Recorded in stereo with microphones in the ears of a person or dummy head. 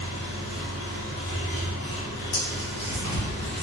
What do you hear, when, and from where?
0.0 s an engine running: 60° left (ahead or behind), 1.1 m
2.3 s tearing paper: 60° left (ahead or behind), 1.4 m